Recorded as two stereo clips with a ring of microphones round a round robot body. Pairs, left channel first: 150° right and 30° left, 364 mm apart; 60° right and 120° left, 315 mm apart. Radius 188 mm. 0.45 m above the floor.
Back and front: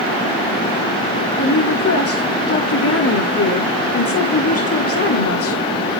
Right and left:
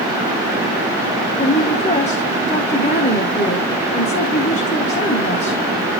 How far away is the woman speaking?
About 1.5 m.